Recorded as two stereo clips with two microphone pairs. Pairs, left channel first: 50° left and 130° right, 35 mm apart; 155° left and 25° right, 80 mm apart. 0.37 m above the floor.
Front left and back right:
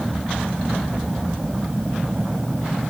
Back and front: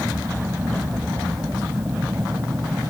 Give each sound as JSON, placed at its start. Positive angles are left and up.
{"t": 0.0, "sound": "an aircraft", "azimuth_deg": -80}